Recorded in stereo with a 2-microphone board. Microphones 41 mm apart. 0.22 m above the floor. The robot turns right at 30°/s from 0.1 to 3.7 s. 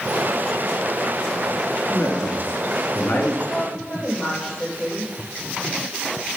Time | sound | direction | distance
1.8 | a man speaking | 65° left | 2.5 m
3.5 | a woman speaking | 10° left (ahead or behind) | 5.5 m